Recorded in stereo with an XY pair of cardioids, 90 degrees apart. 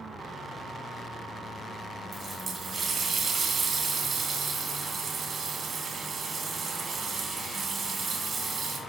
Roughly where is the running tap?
Ahead right.